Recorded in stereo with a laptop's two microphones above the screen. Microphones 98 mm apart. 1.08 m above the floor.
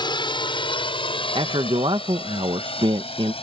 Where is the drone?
55° left (ahead or behind); by 3.4 s 80° left.